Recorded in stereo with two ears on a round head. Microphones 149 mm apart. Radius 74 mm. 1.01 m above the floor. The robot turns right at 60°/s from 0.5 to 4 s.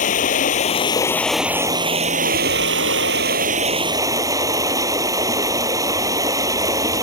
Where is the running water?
130° left; by 7.0 s 20° right.